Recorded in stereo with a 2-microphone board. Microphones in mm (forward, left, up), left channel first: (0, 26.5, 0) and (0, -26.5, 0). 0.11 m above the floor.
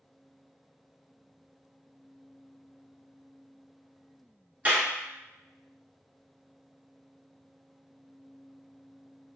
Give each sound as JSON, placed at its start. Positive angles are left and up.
{"t": 4.7, "sound": "a clap", "side_deg": -25, "distance_m": 1.0}